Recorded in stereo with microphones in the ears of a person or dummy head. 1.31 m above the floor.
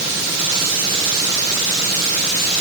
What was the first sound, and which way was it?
Only background noise.